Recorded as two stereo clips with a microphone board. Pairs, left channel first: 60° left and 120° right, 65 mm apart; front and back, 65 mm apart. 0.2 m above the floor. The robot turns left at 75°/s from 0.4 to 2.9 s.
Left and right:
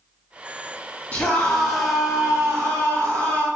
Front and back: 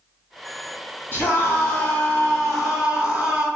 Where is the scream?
15° left, 1.8 m; by 3.5 s 120° right, 1.8 m.